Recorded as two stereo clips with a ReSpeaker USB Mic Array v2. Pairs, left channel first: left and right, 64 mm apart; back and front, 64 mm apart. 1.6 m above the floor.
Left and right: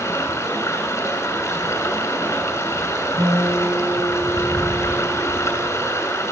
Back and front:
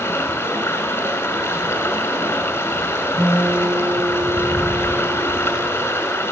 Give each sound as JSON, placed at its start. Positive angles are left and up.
{"t": 0.0, "sound": "running water", "azimuth_deg": 135, "distance_m": 6.5}
{"t": 3.2, "sound": "a guitar", "azimuth_deg": -95, "distance_m": 5.5}